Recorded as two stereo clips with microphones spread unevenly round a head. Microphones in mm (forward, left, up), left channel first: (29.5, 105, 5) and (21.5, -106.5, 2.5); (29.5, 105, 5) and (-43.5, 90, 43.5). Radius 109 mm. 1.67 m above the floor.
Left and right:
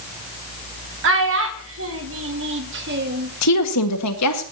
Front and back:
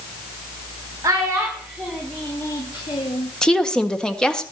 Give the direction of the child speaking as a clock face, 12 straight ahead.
4 o'clock.